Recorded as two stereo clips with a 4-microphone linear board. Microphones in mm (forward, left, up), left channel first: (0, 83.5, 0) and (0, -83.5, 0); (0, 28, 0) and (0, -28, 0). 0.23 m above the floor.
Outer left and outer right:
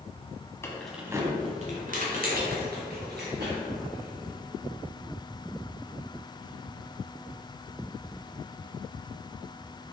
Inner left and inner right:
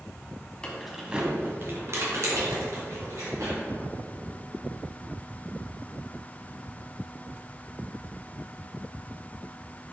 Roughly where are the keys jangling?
Centre.